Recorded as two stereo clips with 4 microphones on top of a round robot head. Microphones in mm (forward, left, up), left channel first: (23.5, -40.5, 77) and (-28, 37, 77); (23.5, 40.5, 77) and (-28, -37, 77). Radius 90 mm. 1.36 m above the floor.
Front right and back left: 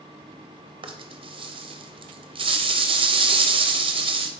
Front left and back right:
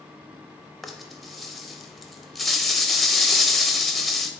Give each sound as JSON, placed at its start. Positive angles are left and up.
{"t": 0.8, "sound": "a rattle", "azimuth_deg": 145, "distance_m": 0.5}